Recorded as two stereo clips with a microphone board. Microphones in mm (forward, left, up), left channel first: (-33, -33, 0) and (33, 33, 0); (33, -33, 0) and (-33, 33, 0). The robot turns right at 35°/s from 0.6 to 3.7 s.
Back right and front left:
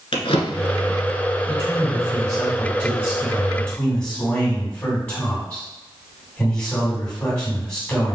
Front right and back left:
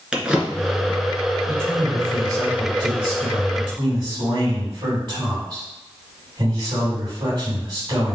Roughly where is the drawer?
Behind right.